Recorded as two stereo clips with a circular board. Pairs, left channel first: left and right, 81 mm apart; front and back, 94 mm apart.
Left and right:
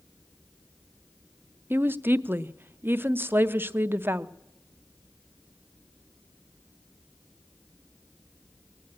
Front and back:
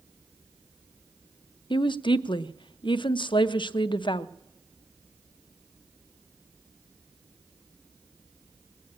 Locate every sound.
1.7 s a woman speaking: 25° right, 0.5 m